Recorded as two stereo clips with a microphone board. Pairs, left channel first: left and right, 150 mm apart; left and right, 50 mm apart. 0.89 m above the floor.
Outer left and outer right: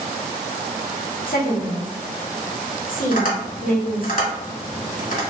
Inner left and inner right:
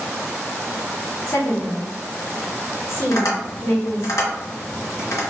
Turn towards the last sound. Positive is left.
turn(degrees=70)  # may be behind; listen again after turning